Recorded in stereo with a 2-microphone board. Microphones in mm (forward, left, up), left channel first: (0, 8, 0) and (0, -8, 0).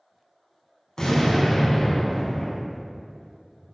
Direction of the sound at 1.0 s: 40° left (ahead or behind).